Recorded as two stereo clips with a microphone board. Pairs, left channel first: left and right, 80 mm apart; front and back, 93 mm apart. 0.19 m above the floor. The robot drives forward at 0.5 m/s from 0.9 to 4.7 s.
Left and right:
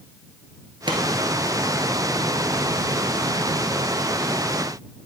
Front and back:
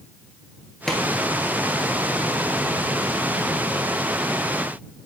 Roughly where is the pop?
Right.